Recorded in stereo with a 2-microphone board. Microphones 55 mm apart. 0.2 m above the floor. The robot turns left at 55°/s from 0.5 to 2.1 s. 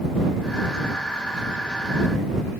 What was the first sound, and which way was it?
Only background noise.